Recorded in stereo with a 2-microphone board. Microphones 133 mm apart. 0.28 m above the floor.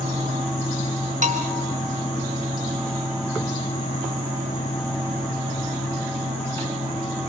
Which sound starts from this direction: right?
A bell, at 1.2 s.